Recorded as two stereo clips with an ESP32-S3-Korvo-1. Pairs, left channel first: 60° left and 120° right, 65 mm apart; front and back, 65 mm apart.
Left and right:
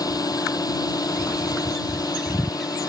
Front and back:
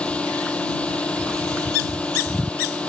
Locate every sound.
0.0 s a drone: 70° left